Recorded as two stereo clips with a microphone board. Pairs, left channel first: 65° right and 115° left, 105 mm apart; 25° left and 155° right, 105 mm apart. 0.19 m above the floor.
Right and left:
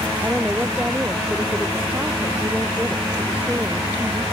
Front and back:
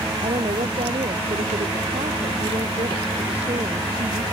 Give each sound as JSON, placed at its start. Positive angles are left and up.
{"t": 0.2, "sound": "a woman speaking", "azimuth_deg": -170}